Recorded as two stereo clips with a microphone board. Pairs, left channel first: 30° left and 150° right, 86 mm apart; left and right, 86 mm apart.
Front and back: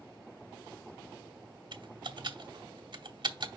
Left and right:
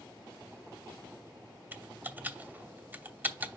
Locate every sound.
1.7 s typing on a keyboard: 155° right, 0.8 m